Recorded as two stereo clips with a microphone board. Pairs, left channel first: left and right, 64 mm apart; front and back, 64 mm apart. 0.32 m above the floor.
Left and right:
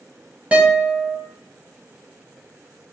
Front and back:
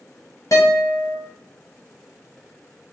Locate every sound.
0.5 s a guitar: 25° right, 0.8 m